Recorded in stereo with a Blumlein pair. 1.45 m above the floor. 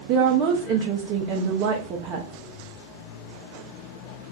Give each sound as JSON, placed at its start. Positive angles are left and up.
{"t": 0.1, "sound": "a woman speaking", "azimuth_deg": -35, "distance_m": 0.6}